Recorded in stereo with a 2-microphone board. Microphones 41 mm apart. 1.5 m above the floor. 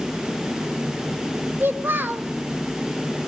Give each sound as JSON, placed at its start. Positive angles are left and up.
{"t": 1.6, "sound": "a child speaking", "side_deg": -60, "distance_m": 0.9}